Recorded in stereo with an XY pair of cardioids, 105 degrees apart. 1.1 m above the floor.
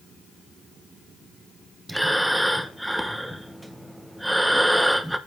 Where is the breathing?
5° right, 0.9 m.